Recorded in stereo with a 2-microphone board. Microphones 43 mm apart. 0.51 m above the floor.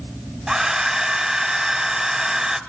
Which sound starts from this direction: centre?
A hair dryer, at 0.5 s.